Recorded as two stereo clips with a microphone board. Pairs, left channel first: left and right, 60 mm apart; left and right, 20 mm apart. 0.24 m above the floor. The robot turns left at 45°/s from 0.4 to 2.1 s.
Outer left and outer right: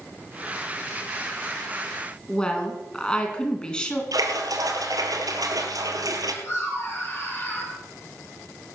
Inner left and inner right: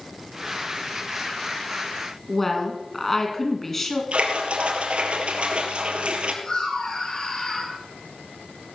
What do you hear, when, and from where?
2.3 s a woman speaking: 15° left (ahead or behind), 3 m
4.1 s a splash: 75° right (ahead or behind), 2 m
6.4 s laughter: 45° left (ahead or behind), 5.5 m